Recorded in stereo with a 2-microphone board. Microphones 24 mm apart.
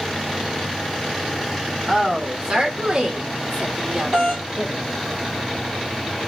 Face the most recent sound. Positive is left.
turn(degrees=-30)  # may be behind; listen again after turning